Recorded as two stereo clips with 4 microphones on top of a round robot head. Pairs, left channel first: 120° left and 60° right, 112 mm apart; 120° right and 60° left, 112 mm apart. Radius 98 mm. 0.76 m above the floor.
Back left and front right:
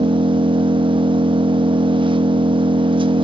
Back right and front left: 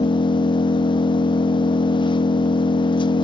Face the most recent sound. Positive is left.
turn(degrees=-85)